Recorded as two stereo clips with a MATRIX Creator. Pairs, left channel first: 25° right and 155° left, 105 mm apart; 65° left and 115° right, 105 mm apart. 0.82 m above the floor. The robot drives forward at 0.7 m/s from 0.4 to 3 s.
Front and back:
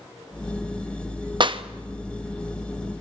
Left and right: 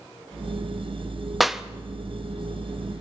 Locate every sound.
1.4 s a clap: 155° left, 0.8 m; by 1.6 s 160° left, 0.9 m